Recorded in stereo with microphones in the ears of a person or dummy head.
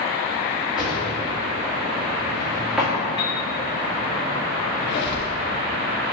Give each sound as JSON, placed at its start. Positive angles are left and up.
{"t": 0.8, "sound": "a drawer", "side_deg": -5, "distance_m": 1.7}
{"t": 3.2, "sound": "a piano", "side_deg": 30, "distance_m": 1.5}
{"t": 4.8, "sound": "a squeak", "side_deg": 35, "distance_m": 1.4}